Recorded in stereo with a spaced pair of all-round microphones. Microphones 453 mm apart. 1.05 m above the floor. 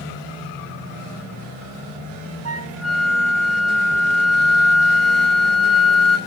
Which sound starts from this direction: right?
A flute, at 2.5 s.